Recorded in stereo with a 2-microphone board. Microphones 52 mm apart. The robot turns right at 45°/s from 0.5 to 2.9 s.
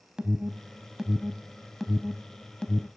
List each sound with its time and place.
0.2 s an alarm: 20° right (ahead or behind), 0.9 m; by 2.9 s 20° left (ahead or behind), 0.9 m